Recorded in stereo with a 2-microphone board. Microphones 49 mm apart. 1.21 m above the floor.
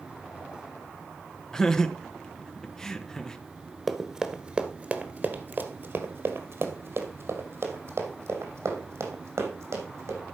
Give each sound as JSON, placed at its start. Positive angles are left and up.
{"t": 1.5, "sound": "laughter", "side_deg": 10, "distance_m": 1.2}
{"t": 3.9, "sound": "running footsteps", "side_deg": 0, "distance_m": 1.3}